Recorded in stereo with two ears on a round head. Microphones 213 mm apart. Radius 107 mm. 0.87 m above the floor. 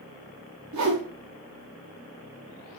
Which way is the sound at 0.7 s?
75° right (ahead or behind).